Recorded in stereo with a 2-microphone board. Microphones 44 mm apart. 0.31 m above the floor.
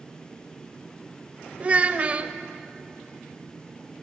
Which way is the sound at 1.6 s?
30° right (ahead or behind).